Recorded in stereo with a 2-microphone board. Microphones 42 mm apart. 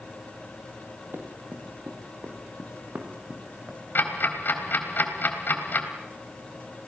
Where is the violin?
No violin in this recording.